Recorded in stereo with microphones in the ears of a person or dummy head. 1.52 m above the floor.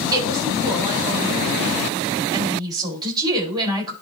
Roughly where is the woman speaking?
Right.